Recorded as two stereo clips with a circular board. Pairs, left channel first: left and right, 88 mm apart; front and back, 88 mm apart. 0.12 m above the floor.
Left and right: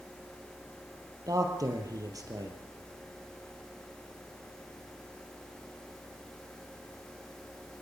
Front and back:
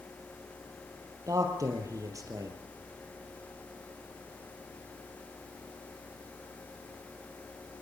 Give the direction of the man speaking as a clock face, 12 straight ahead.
4 o'clock.